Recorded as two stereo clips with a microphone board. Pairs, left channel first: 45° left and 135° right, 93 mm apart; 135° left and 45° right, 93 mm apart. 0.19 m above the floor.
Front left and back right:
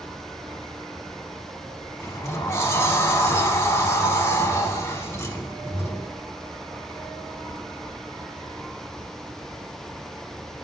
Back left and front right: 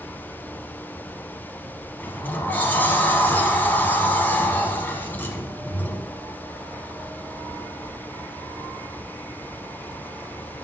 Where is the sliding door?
80° left, 0.8 m.